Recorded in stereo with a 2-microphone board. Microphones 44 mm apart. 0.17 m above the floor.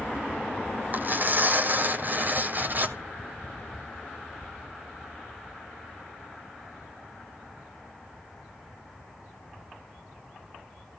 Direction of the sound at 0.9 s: 45° right (ahead or behind).